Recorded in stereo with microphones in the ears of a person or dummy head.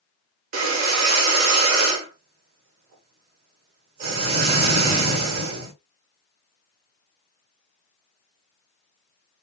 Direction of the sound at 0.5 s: 50° right (ahead or behind).